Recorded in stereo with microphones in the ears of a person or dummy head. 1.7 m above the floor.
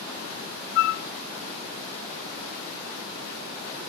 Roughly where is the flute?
Left.